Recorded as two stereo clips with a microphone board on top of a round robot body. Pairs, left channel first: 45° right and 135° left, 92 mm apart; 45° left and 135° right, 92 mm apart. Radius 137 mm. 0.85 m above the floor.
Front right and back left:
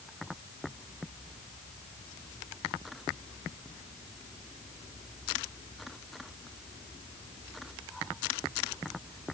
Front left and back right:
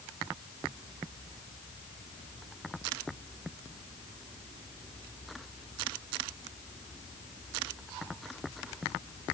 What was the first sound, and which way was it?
Only background noise.